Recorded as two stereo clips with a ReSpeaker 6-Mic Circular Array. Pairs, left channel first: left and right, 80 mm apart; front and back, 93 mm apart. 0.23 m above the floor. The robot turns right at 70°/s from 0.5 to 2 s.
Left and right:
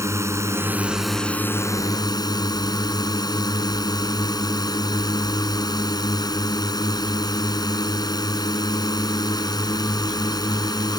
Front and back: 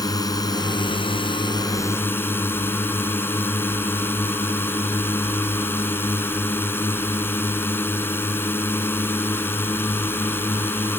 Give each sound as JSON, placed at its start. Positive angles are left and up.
{"t": 0.0, "sound": "a drone", "azimuth_deg": -40}